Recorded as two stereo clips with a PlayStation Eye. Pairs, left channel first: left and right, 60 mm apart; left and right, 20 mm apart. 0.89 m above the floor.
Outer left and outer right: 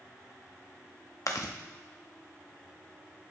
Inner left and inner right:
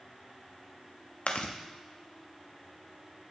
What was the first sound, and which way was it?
Chewing, 65° left (ahead or behind).